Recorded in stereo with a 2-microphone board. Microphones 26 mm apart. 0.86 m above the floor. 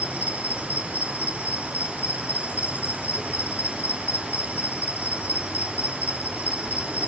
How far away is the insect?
About 2.5 m.